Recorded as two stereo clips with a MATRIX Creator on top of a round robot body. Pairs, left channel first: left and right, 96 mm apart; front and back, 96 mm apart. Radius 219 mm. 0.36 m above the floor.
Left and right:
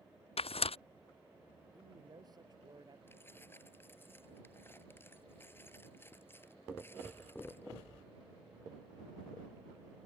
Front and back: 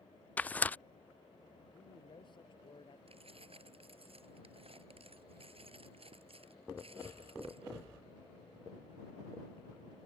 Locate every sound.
0.4 s tearing paper: 75° left
1.7 s a man speaking: 40° right
3.1 s keys jangling: 160° left